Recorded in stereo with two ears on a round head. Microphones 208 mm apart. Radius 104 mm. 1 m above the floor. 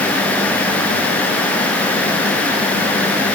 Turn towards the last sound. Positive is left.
No sound to turn to.